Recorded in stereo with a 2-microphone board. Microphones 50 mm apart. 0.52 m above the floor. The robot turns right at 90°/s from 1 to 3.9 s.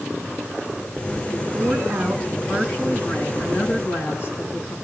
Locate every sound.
1.3 s a woman speaking: 110° right, 5 m; by 4.8 s 125° left, 5 m